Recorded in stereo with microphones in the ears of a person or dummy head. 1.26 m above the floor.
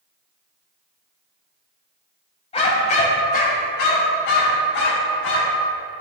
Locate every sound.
2.5 s a dog barking: 35° left (ahead or behind), 3 m; by 5.6 s 75° left (ahead or behind), 5.5 m